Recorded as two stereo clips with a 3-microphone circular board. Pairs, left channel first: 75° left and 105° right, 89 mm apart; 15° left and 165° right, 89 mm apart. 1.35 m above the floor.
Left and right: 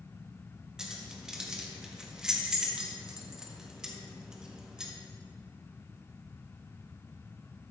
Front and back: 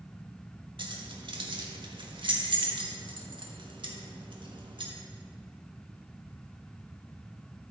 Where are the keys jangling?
175° left, 1.3 m.